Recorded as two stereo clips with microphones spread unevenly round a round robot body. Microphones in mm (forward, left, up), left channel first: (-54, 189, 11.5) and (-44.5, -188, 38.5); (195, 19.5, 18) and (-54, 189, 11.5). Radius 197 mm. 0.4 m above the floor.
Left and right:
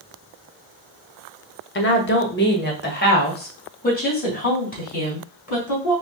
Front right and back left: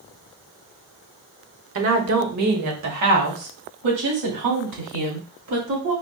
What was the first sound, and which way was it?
A woman speaking, 135° left.